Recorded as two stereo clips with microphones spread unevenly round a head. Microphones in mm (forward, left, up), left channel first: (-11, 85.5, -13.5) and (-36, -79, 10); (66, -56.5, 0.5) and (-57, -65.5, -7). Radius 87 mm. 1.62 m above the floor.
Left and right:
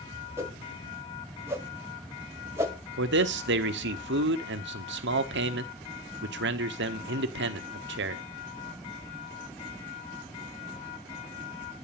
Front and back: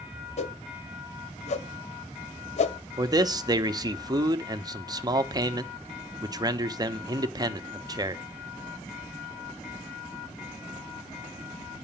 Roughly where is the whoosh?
Ahead right.